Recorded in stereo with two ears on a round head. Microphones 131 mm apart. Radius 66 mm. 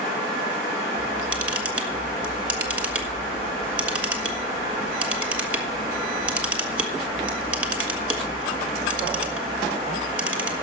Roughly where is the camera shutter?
Centre.